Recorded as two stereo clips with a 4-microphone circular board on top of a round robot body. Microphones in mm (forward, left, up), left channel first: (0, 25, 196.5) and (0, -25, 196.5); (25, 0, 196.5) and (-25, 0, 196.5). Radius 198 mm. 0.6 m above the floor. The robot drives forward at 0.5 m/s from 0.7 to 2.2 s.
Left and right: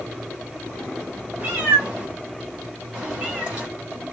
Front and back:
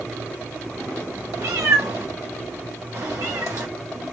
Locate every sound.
1.4 s a cat meowing: 150° right, 1.0 m; by 3.7 s 160° right, 1.3 m